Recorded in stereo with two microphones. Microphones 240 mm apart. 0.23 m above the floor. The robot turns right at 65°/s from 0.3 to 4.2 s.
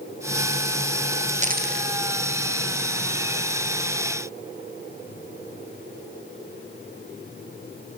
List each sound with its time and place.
1.4 s a dropped coin: 30° right (ahead or behind), 2 m; by 1.9 s 55° right (ahead or behind), 2 m